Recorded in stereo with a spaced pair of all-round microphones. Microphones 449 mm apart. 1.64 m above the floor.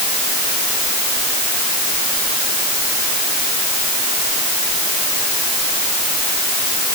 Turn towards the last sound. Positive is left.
No sound to turn to.